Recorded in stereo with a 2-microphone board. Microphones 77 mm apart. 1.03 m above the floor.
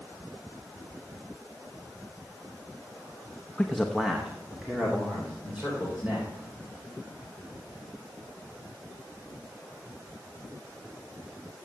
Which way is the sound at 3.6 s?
10° left (ahead or behind).